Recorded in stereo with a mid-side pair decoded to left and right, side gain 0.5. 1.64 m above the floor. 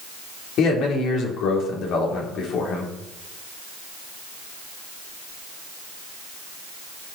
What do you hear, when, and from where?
0.6 s a man speaking: 65° left, 4 m